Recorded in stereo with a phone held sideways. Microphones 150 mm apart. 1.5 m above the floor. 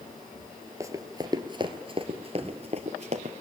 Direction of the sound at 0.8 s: 20° right (ahead or behind).